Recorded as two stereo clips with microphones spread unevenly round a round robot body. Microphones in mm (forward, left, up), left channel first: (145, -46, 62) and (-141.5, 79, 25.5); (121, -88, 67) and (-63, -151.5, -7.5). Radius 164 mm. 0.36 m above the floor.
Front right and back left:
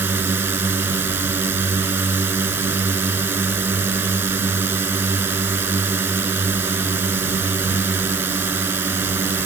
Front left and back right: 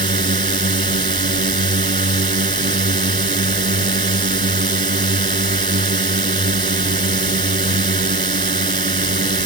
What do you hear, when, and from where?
0.0 s a drone: 120° right